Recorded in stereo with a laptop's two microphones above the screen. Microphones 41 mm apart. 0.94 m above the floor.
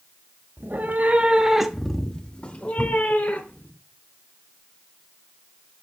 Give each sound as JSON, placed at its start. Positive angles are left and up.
{"t": 0.6, "sound": "a cat meowing", "side_deg": -60, "distance_m": 1.1}